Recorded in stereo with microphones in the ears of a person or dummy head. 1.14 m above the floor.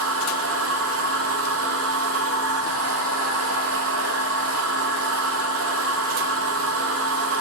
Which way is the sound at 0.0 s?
80° right.